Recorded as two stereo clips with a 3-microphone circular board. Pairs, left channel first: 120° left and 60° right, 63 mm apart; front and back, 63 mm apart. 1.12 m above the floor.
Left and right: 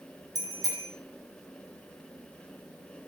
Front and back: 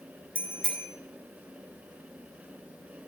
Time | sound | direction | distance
0.3 | a bicycle bell | 70° right | 2.5 m